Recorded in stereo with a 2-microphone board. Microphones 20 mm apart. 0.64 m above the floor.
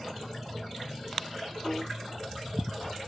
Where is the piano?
25° left (ahead or behind), 0.8 m.